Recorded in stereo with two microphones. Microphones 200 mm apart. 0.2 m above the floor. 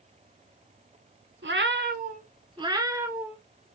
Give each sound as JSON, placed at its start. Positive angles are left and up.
{"t": 1.4, "sound": "a cat meowing", "side_deg": -70, "distance_m": 0.6}